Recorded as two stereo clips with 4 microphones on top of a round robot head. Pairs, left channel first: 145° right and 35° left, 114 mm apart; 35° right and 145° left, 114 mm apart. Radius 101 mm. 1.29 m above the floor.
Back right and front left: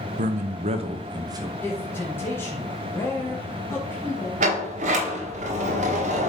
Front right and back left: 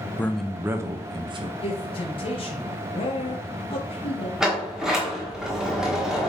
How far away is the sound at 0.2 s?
About 0.8 m.